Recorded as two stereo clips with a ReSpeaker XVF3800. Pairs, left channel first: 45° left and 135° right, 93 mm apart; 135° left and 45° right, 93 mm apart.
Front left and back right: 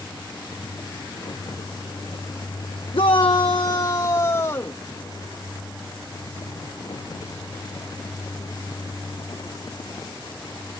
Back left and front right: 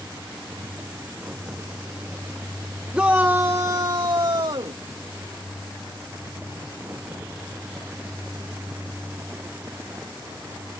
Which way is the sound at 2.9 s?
30° left.